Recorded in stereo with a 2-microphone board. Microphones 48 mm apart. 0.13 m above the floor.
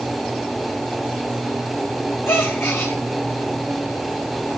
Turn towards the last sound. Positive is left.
turn(degrees=60)  # may be behind; listen again after turning